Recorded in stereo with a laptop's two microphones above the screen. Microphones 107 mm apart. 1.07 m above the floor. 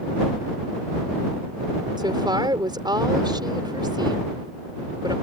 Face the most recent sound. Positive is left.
turn(degrees=-40)  # may be behind; listen again after turning